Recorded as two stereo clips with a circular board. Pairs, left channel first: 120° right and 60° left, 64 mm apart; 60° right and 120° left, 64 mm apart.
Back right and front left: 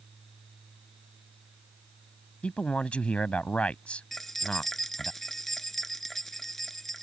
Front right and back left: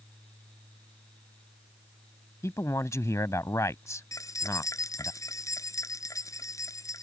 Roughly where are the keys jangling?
Ahead right.